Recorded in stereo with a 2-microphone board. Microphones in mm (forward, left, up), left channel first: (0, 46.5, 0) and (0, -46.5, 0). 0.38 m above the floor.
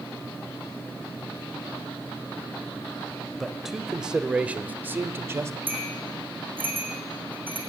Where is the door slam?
I don't hear a door slam.